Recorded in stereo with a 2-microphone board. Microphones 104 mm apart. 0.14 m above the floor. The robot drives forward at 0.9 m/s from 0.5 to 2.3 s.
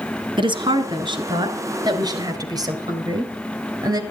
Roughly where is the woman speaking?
Right.